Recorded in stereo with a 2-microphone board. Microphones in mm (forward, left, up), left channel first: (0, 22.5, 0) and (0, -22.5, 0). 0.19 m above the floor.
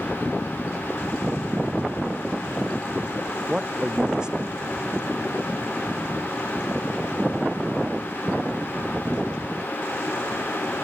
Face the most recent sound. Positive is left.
turn(degrees=-20)  # may be behind; listen again after turning